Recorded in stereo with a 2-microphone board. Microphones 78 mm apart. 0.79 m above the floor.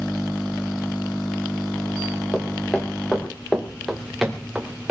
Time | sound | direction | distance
2.3 | footsteps | 25° left (ahead or behind) | 3.5 m